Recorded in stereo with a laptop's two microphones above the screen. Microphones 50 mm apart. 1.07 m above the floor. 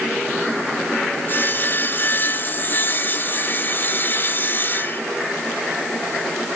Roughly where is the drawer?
I don't hear a drawer.